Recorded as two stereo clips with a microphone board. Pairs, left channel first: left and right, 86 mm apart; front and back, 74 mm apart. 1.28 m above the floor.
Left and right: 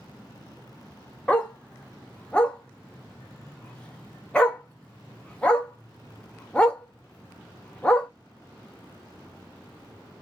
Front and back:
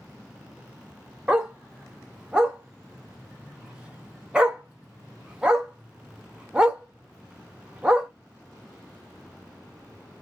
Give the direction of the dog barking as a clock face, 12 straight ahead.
8 o'clock.